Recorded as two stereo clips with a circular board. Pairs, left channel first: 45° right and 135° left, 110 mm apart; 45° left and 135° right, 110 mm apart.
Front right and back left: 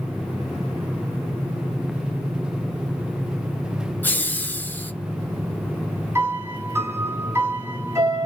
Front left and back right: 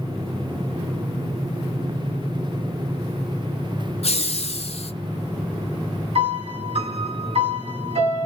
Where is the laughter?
30° left, 0.7 m.